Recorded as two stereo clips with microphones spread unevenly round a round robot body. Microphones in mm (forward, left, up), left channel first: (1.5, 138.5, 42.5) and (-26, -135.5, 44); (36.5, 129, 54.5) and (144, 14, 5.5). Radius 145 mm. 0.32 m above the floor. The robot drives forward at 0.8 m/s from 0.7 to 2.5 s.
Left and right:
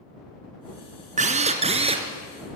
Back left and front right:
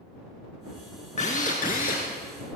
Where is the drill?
160° right, 1.7 m; by 2.1 s 165° right, 2.5 m.